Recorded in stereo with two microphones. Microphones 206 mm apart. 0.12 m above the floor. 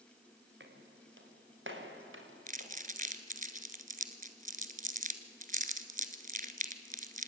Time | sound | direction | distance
0.6 | footsteps | 65° right (ahead or behind) | 4 m
2.5 | crumpling | 40° right (ahead or behind) | 1.5 m